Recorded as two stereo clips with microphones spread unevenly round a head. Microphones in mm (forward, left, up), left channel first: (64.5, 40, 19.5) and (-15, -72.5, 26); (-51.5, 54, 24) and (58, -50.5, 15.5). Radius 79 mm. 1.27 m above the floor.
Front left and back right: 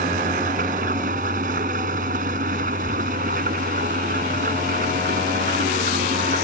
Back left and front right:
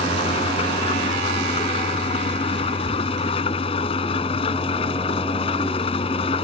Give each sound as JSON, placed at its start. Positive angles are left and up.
{"t": 0.0, "sound": "an engine running", "azimuth_deg": -165}